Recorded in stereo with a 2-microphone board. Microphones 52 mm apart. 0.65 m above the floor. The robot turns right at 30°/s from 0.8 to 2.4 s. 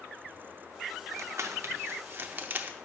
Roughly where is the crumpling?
Right.